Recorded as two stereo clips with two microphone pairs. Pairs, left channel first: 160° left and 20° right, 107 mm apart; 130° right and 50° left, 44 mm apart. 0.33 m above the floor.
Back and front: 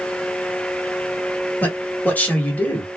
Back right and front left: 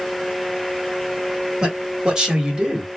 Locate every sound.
1.6 s a man speaking: 100° left, 1.2 m